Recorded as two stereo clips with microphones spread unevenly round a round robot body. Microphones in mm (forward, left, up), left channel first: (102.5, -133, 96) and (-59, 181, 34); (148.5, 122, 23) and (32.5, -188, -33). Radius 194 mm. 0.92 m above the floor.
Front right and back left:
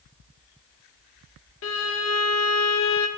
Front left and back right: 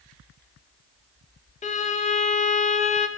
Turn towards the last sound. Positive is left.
turn(degrees=-5)